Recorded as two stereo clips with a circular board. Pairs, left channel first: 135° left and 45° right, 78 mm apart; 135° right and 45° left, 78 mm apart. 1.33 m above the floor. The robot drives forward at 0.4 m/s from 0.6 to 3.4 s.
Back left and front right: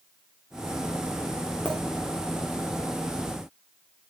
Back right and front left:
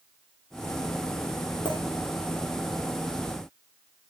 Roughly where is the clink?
Behind right.